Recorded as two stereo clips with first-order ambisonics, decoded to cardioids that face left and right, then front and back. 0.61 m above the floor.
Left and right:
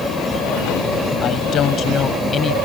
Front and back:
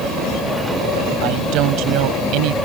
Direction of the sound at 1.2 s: 145° left.